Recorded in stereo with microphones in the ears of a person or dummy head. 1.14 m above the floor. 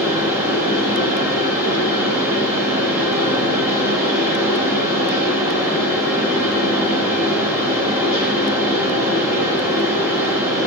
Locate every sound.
0.0 s a fan: 15° right (ahead or behind), 1.0 m